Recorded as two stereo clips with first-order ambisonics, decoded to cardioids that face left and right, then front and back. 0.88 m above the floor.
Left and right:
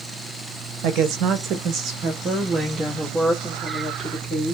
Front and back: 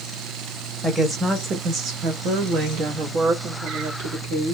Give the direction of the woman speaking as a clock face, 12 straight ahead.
3 o'clock.